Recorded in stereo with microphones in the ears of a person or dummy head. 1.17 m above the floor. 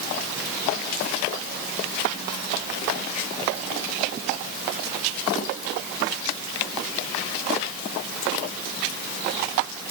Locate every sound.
Only background noise.